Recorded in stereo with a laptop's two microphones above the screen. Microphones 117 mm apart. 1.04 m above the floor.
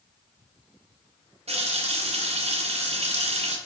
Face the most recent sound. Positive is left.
turn(degrees=-60)  # may be behind; listen again after turning